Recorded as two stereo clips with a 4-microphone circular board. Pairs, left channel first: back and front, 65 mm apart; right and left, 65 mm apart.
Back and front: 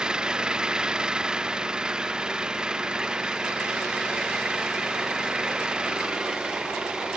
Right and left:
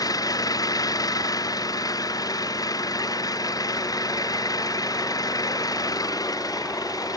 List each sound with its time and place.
0.0 s an engine running: 75° right